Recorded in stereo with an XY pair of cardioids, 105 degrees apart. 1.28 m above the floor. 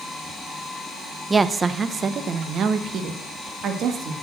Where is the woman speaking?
25° right, 0.7 m; by 4.1 s 70° right, 2 m.